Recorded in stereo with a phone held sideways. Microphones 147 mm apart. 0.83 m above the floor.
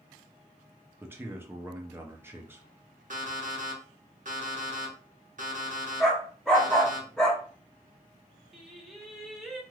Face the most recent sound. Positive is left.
turn(degrees=0)  # may be behind; listen again after turning